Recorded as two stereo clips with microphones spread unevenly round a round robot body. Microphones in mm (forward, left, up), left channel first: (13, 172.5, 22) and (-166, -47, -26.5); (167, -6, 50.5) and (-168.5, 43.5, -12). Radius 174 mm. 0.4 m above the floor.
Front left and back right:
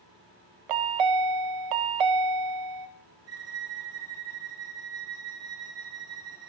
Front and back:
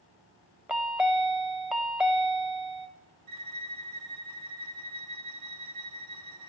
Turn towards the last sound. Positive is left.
turn(degrees=-155)